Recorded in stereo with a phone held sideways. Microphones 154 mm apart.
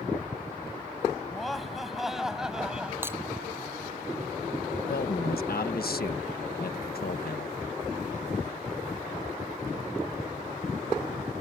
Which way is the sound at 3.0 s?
15° right (ahead or behind).